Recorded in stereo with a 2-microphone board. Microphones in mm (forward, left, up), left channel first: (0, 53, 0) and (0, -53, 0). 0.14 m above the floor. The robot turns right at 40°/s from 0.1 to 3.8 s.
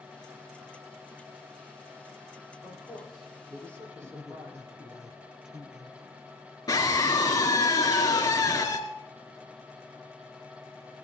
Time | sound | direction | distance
2.6 | a man speaking | 20° left (ahead or behind) | 6.5 m
4.0 | a man speaking | 5° right (ahead or behind) | 2 m
6.7 | a scream | 35° left (ahead or behind) | 2 m